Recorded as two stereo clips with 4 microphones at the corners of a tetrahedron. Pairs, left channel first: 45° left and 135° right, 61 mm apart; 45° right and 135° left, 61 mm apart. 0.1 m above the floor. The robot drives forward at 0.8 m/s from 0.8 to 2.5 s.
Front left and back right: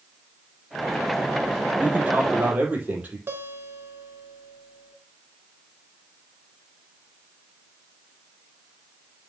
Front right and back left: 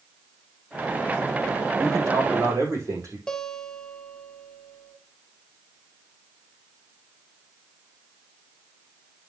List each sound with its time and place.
1.8 s a man speaking: 160° left, 4.5 m; by 3.2 s 165° left, 5 m
3.3 s a guitar: 115° right, 1.2 m